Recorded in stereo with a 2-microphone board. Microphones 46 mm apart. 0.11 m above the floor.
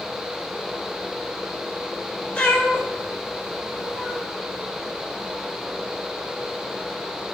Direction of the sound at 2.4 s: 25° left (ahead or behind).